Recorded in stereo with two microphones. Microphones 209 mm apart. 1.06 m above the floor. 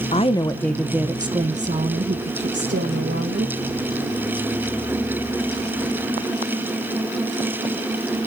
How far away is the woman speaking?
About 0.9 m.